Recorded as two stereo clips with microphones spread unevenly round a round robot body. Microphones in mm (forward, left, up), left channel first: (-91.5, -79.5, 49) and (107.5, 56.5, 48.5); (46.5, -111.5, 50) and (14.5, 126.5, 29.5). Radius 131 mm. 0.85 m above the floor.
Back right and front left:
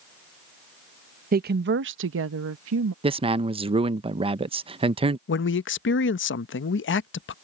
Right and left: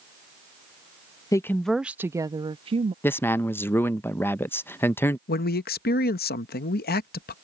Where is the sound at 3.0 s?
Straight ahead.